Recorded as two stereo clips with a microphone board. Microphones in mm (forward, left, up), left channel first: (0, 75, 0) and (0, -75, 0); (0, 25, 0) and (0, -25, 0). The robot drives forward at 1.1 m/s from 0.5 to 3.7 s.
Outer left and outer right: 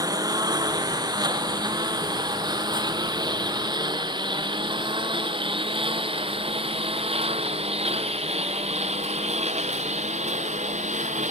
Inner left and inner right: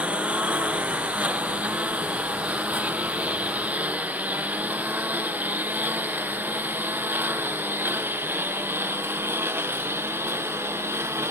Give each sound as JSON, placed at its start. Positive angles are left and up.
{"t": 0.0, "sound": "a lawn mower", "side_deg": -25}